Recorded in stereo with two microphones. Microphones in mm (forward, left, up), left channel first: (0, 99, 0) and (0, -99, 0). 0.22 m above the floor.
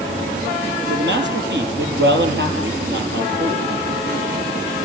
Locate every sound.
0.9 s a man speaking: 65° right (ahead or behind), 6 m